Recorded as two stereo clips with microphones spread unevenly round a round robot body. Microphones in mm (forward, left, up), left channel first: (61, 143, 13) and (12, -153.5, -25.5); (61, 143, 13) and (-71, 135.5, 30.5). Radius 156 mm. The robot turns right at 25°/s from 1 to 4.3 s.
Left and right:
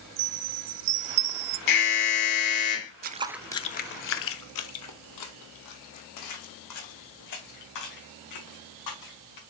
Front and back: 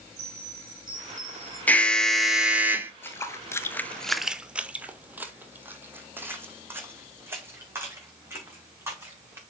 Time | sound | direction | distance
0.2 | a chime | 100° right | 1.2 m
1.7 | an alarm | 75° left | 1.5 m
3.0 | footsteps | 75° right | 0.5 m